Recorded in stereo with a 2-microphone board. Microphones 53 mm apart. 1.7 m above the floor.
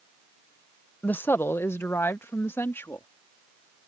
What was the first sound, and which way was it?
A woman speaking, 35° left (ahead or behind).